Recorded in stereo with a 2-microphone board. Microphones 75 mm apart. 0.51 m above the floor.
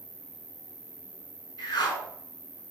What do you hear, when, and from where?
0.0 s an insect: 45° right (ahead or behind), 1.2 m
1.6 s a whoosh: 70° left (ahead or behind), 2.5 m